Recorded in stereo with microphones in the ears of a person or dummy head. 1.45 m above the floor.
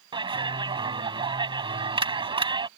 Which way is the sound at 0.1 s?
25° right (ahead or behind).